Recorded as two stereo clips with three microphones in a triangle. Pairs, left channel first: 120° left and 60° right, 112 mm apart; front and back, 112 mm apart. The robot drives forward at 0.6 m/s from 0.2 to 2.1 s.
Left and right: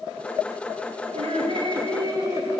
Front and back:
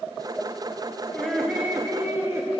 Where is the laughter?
85° right, 1.1 m; by 2.5 s 115° right, 1.2 m.